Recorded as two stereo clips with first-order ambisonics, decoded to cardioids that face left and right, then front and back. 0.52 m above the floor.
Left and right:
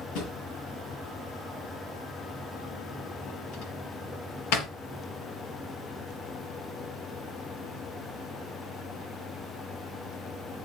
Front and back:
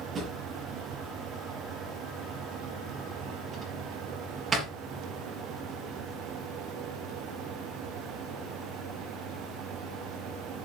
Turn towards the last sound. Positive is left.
turn(degrees=110)